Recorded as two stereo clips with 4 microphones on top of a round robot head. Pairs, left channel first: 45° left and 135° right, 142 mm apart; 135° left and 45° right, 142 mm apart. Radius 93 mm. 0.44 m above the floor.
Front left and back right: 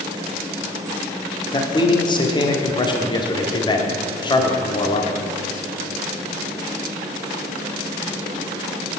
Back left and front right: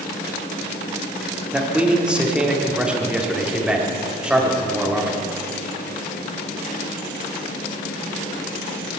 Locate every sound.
1.5 s a man speaking: 35° left, 1.6 m